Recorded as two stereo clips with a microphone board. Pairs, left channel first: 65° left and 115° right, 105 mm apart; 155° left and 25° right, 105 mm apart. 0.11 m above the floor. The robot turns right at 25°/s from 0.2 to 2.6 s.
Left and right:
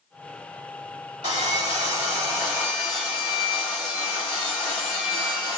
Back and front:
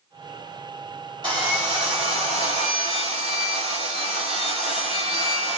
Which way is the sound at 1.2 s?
70° right.